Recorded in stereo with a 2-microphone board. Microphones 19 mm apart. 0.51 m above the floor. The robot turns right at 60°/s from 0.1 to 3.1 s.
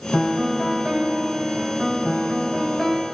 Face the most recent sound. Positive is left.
turn(degrees=15)